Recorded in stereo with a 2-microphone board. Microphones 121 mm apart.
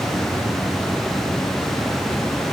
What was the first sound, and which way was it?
Only background noise.